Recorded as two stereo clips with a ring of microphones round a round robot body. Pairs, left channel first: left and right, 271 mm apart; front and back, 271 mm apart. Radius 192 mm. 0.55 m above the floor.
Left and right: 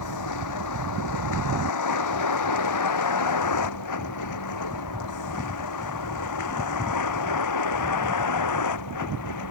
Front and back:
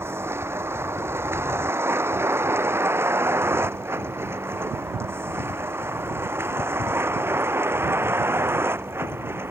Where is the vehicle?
100° left.